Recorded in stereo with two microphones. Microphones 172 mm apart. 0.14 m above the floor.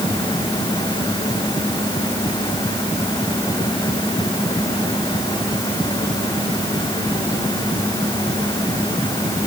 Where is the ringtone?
I don't hear a ringtone.